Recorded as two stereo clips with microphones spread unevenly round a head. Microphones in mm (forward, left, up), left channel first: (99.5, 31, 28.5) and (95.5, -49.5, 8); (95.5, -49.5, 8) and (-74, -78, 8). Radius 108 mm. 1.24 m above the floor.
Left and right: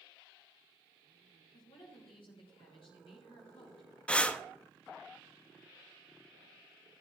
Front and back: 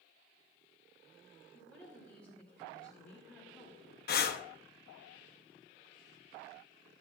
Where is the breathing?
5° left, 0.8 m.